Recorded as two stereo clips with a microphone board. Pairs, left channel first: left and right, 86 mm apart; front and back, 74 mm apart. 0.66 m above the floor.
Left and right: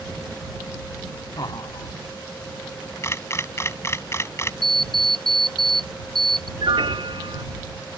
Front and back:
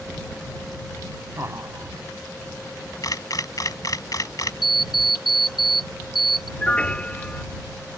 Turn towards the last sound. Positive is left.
turn(degrees=-75)